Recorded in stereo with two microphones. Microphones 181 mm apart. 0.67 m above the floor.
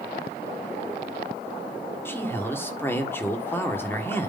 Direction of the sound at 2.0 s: 10° left (ahead or behind).